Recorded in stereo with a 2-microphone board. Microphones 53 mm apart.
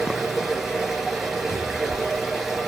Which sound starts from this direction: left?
A cupboard door, at 1.5 s.